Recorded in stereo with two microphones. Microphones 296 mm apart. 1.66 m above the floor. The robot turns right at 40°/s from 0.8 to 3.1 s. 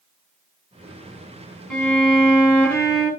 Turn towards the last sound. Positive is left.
turn(degrees=-40)